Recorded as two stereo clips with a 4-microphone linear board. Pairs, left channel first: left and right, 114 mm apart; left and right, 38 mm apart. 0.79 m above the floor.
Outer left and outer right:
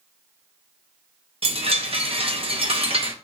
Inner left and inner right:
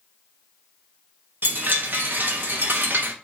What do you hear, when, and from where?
1.4 s a chime: 50° right (ahead or behind), 0.8 m